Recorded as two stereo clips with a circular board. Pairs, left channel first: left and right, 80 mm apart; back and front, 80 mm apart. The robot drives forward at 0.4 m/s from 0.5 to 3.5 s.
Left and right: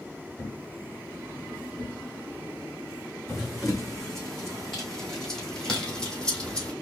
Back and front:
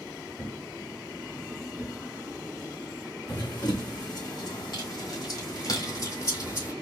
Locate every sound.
0.4 s a thud: 105° left, 1.6 m; by 3.5 s 145° left, 2 m
3.3 s running footsteps: straight behind, 3.5 m; by 6.7 s 160° left, 1.9 m